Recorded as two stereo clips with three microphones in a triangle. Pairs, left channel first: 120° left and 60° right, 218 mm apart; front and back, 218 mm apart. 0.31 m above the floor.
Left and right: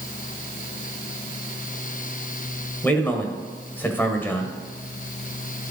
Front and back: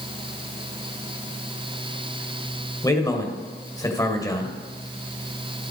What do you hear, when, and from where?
2.8 s a man speaking: 50° left, 1.4 m